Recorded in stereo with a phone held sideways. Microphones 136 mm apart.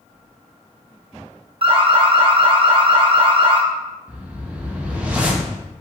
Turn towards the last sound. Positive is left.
turn(degrees=-10)  # may be behind; listen again after turning